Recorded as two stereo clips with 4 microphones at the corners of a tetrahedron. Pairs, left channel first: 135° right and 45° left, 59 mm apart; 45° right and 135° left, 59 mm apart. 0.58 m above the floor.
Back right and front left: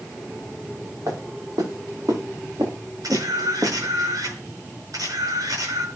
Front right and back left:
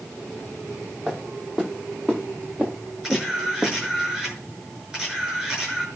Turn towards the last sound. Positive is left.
turn(degrees=60)